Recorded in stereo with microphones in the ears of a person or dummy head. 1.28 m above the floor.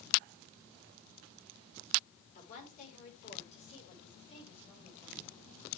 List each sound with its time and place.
2.4 s a woman speaking: 45° left (ahead or behind), 4.5 m; by 5.2 s 25° left (ahead or behind), 8 m